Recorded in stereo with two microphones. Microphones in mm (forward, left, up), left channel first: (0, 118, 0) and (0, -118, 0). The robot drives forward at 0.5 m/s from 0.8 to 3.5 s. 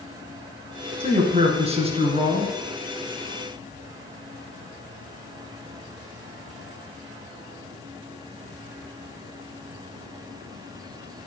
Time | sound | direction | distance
1.0 | a man speaking | 30° right (ahead or behind) | 1.9 m